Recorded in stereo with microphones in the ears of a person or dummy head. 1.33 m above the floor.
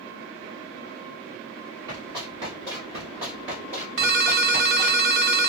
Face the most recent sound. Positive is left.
turn(degrees=-45)  # may be behind; listen again after turning